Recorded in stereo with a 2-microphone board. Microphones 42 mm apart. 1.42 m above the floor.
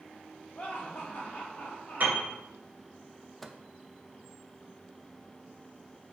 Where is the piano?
40° right (ahead or behind), 2.5 m.